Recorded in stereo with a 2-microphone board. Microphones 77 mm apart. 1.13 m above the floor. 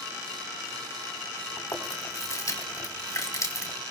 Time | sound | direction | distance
1.6 | chewing | 45° left (ahead or behind) | 4 m